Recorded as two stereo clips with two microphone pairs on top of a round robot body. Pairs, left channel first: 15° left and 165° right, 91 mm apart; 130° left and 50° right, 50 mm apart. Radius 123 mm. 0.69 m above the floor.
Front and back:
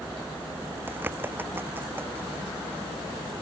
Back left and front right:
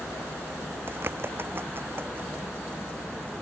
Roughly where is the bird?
Right.